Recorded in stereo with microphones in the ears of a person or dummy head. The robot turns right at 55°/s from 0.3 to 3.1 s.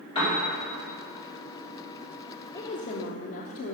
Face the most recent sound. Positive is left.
turn(degrees=65)